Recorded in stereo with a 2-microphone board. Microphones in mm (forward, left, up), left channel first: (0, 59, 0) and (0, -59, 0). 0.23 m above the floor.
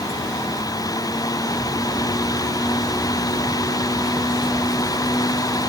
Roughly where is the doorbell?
No doorbell in this recording.